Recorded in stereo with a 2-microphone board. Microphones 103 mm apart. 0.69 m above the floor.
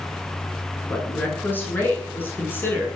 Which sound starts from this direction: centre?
A woman speaking, at 0.9 s.